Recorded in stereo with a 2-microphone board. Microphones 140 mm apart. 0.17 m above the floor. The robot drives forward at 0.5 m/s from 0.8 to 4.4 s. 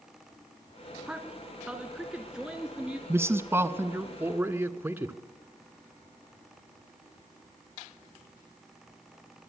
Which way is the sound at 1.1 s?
5° right (ahead or behind).